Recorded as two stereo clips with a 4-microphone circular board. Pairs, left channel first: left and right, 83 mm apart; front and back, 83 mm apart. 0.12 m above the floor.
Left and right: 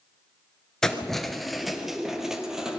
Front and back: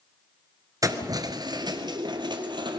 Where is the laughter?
No laughter in this recording.